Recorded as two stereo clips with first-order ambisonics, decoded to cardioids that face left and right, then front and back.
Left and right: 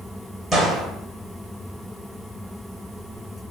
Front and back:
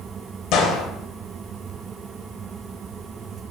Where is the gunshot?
Straight ahead, 0.8 m.